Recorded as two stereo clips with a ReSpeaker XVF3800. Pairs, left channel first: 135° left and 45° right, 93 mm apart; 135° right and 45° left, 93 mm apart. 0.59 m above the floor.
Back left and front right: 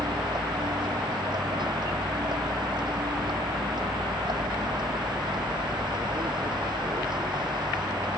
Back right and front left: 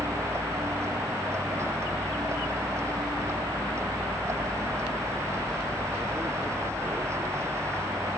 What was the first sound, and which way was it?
A vehicle, 15° right.